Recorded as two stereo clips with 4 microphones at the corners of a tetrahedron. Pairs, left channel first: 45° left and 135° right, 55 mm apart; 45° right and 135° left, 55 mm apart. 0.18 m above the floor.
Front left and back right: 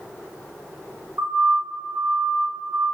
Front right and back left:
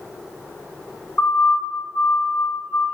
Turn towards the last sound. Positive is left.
turn(degrees=-95)